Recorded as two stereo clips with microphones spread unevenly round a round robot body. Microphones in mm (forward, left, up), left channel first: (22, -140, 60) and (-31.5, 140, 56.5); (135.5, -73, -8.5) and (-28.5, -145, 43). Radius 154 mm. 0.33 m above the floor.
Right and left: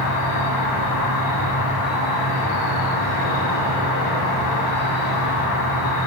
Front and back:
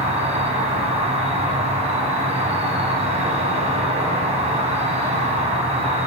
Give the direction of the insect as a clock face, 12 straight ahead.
3 o'clock.